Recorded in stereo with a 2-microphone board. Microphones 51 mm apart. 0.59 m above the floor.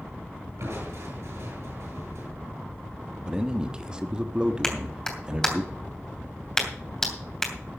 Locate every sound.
0.6 s crushing: 75° right (ahead or behind), 7.5 m
3.2 s a man speaking: 15° right (ahead or behind), 1.1 m
4.6 s a clap: 10° left (ahead or behind), 2.5 m